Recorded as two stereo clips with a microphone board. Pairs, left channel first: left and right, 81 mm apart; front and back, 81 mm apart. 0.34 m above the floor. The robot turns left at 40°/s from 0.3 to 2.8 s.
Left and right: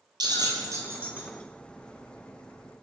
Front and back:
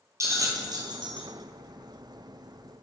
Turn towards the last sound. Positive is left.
turn(degrees=135)